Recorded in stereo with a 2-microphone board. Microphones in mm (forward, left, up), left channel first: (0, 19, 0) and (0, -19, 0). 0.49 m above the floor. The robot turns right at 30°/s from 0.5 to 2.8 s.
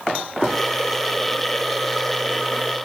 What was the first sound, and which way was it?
Only background noise.